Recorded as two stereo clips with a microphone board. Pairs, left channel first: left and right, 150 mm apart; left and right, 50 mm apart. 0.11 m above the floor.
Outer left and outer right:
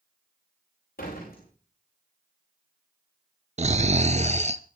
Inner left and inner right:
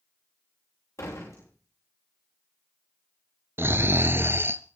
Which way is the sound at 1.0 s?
80° left.